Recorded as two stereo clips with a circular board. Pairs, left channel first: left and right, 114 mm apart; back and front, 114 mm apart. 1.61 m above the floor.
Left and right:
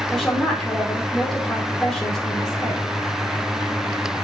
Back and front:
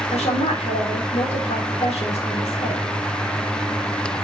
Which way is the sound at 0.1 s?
175° left.